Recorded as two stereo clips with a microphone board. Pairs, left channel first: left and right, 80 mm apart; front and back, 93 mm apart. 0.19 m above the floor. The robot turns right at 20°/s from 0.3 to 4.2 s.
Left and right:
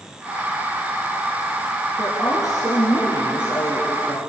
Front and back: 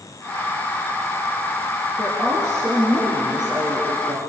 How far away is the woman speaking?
About 3.5 m.